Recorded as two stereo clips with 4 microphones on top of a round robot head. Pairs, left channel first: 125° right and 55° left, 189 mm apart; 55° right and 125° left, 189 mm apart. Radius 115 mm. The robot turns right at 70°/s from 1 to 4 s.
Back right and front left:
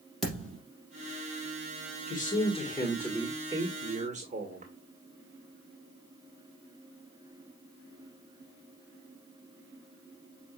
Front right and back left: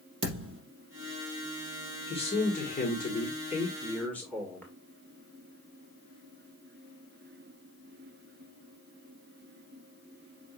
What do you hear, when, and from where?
0.2 s a thud: 150° left, 4 m
2.1 s a man speaking: 110° right, 1.8 m; by 4.7 s 25° left, 1.8 m